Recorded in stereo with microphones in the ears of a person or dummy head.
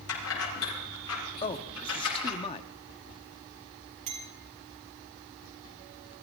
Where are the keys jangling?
80° left, 7 m; by 2.4 s 85° left, 8.5 m.